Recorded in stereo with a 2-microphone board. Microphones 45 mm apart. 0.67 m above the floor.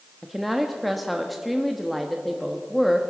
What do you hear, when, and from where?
0.2 s a woman speaking: centre (ahead or behind), 0.9 m